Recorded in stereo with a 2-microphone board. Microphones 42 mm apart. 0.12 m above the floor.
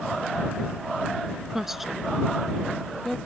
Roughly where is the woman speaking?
Centre.